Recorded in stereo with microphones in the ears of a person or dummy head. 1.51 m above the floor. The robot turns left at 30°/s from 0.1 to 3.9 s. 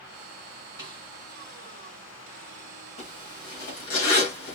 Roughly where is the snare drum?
Centre.